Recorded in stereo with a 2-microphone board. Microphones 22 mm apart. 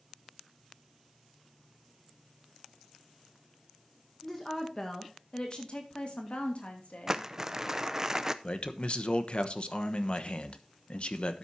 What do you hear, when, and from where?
4.2 s a woman speaking: 15° left (ahead or behind), 1.9 m; by 7.2 s 70° left (ahead or behind), 3 m
7.1 s crumpling: 20° right (ahead or behind), 0.7 m
8.4 s a man speaking: 50° left (ahead or behind), 1.1 m